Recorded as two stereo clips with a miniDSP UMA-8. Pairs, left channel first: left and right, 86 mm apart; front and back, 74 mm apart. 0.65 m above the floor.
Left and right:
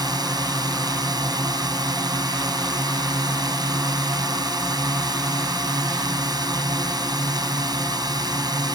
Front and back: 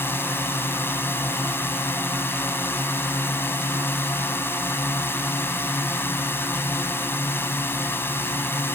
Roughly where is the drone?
Ahead right.